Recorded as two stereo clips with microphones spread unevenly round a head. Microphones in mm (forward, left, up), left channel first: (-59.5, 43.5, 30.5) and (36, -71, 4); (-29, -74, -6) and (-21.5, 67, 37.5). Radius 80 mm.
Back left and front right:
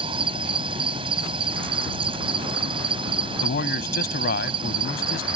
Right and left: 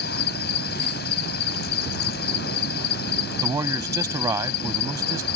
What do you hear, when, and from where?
0.0 s an insect: 110° right
3.4 s a man speaking: 155° left